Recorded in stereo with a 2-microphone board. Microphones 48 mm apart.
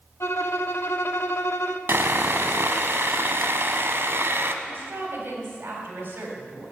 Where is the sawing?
60° right (ahead or behind), 0.8 m.